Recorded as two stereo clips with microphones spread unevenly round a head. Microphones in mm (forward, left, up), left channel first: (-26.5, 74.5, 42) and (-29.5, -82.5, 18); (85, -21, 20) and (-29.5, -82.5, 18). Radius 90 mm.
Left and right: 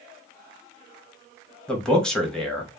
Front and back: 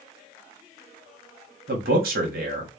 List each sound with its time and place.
1.7 s a man speaking: 175° left, 0.8 m